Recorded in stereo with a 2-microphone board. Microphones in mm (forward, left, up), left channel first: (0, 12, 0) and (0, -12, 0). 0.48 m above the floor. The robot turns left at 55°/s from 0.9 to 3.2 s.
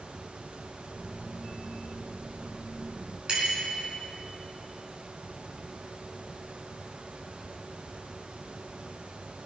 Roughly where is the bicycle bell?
Right.